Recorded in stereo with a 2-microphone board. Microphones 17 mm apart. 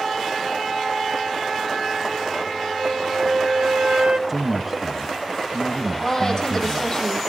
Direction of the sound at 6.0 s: 20° left (ahead or behind).